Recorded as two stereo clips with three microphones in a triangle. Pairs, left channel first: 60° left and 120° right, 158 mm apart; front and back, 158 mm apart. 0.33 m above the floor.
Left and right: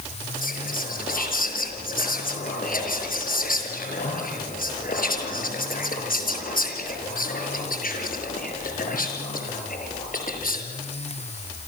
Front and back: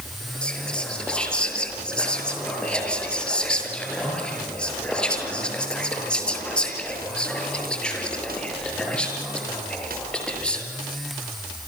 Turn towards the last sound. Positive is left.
turn(degrees=85)